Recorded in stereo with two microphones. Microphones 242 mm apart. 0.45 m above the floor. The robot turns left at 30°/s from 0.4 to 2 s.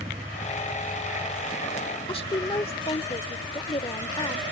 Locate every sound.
0.0 s a vehicle: 20° right (ahead or behind); by 4.5 s 30° left (ahead or behind)
2.1 s a woman speaking: 25° left (ahead or behind)